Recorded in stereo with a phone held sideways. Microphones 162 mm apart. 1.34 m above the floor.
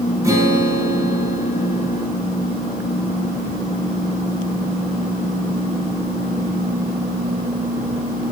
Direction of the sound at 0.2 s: 20° right (ahead or behind).